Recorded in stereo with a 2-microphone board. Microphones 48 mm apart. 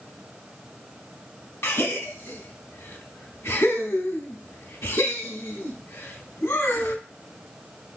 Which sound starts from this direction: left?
A gasp, at 1.6 s.